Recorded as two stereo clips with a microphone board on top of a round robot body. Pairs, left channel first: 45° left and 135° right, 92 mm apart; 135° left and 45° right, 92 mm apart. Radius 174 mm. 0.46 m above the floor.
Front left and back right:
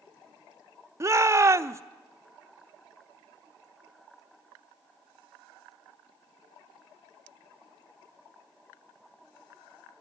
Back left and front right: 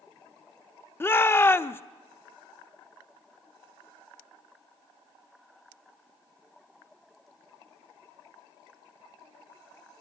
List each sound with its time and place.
1.0 s a shout: 175° right, 1.0 m